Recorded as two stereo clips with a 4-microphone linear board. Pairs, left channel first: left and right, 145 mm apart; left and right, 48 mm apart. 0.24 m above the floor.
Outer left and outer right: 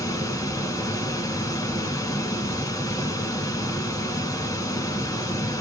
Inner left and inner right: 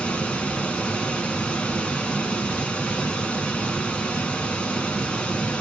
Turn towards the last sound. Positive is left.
turn(degrees=25)  # may be behind; listen again after turning